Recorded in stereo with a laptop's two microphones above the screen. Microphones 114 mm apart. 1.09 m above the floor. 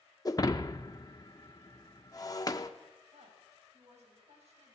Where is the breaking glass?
35° left (ahead or behind), 0.9 m.